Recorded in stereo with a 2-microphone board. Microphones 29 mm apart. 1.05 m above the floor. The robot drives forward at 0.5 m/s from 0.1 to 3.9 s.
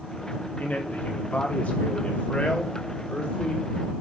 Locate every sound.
0.6 s a man speaking: 65° left (ahead or behind), 2 m; by 3.7 s 40° left (ahead or behind), 3 m